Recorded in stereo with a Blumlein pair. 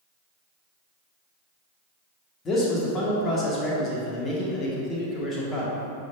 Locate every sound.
2.5 s a man speaking: 25° left, 1.8 m